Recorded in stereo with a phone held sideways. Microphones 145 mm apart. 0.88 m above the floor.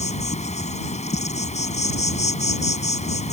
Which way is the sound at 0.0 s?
50° left (ahead or behind).